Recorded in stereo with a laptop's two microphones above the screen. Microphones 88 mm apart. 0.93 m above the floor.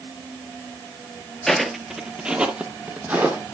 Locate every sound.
1.5 s footsteps: 5° left (ahead or behind), 1.0 m; by 3.5 s 20° right (ahead or behind), 2.5 m